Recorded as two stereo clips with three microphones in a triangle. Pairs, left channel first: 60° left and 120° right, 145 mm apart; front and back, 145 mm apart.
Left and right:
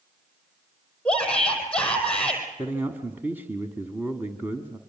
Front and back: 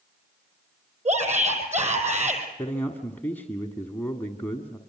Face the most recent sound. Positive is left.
turn(degrees=-60)